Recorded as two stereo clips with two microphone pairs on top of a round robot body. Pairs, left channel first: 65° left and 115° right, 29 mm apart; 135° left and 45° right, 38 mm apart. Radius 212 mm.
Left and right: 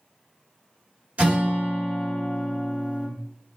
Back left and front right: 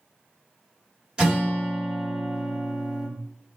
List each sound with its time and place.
1.2 s a guitar: 105° right, 1.8 m